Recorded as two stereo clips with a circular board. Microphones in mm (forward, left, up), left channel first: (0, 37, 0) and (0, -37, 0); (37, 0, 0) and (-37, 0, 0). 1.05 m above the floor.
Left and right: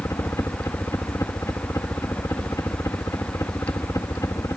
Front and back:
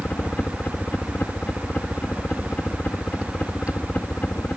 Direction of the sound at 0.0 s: 60° left.